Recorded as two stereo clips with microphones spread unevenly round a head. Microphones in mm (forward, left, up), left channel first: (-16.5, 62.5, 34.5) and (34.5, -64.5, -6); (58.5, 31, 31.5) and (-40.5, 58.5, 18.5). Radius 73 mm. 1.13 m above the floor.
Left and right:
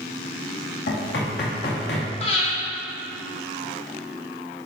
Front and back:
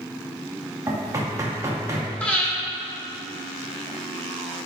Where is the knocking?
105° left, 2.5 m.